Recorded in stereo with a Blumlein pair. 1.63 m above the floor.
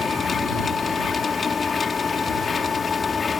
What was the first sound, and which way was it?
A machine running, 15° left.